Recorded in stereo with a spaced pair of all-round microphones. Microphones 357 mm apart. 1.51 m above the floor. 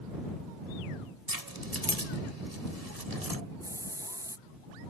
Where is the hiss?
10° right (ahead or behind).